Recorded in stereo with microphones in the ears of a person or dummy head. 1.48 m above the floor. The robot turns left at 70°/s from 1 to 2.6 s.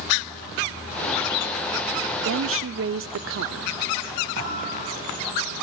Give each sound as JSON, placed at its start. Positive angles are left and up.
{"t": 2.2, "sound": "a woman speaking", "side_deg": -60, "distance_m": 0.5}
{"t": 4.4, "sound": "a thud", "side_deg": -60, "distance_m": 8.0}